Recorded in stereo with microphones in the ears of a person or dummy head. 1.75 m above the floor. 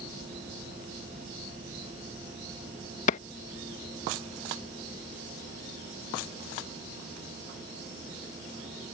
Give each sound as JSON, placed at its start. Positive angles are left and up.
{"t": 3.1, "sound": "a clap", "side_deg": 45}